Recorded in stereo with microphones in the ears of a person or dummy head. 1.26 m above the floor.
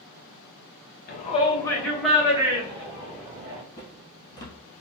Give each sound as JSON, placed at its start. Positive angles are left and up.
{"t": 1.1, "sound": "a shout", "side_deg": 45, "distance_m": 0.7}
{"t": 3.8, "sound": "footsteps", "side_deg": 20, "distance_m": 1.8}